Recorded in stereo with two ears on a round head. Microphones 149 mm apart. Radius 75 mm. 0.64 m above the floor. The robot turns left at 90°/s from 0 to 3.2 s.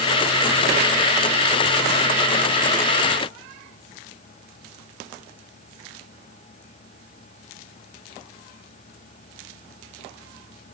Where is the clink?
No clink in this recording.